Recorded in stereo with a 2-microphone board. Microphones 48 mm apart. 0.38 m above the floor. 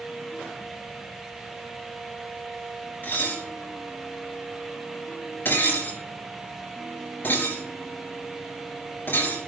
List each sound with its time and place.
3.0 s dishes clattering: 50° left (ahead or behind), 4.5 m